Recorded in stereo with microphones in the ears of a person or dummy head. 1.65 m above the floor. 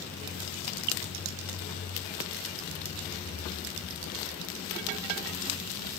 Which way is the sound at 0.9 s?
55° right (ahead or behind).